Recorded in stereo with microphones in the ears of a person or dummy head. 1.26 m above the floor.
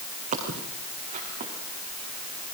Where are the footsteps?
35° right (ahead or behind), 4.5 m; by 1.5 s 30° right (ahead or behind), 4.5 m.